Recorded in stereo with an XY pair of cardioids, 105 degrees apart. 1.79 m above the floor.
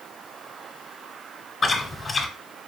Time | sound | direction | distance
1.6 | chewing | 35° left | 0.9 m